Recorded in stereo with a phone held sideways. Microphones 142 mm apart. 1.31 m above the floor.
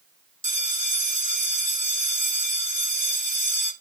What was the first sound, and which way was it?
A bell, 60° right (ahead or behind).